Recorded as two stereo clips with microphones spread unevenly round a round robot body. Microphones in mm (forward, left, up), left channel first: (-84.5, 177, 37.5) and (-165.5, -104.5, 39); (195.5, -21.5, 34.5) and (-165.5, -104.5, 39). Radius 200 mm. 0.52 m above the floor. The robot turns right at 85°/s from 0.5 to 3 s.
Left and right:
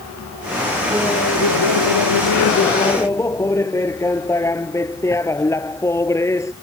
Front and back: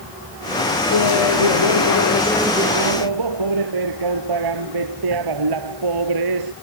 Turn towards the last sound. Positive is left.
turn(degrees=155)